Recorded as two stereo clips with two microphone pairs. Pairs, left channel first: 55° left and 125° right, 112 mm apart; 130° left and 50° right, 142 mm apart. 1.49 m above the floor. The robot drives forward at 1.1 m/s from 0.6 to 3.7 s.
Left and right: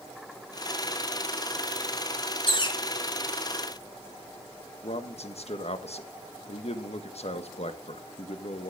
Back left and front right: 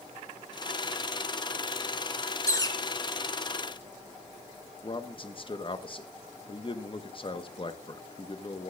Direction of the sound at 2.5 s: 70° left.